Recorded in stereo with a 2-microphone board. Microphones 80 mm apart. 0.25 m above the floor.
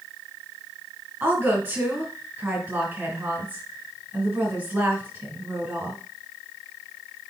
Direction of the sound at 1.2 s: 20° right (ahead or behind).